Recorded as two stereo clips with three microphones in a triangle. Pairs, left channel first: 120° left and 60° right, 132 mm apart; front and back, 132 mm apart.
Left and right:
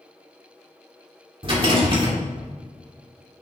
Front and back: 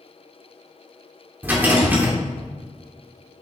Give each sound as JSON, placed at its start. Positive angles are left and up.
{"t": 1.4, "sound": "a rattle", "azimuth_deg": -105, "distance_m": 2.5}